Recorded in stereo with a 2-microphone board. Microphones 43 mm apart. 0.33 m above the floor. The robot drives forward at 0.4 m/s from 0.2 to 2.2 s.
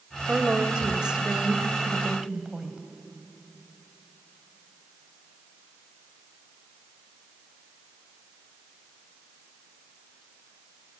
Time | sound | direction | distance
0.3 | a woman speaking | 20° right (ahead or behind) | 1.2 m